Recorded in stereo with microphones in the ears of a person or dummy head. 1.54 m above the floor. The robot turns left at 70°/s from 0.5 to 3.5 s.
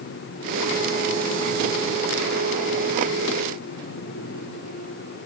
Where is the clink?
No clink in this recording.